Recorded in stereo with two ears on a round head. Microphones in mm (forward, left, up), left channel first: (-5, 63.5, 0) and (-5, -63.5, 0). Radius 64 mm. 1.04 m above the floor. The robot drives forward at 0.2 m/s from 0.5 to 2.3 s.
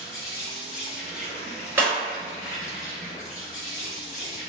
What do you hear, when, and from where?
0.0 s an insect: 65° left (ahead or behind), 1.2 m; by 4.5 s 55° left (ahead or behind), 1.3 m
1.8 s breaking glass: 15° right (ahead or behind), 1.5 m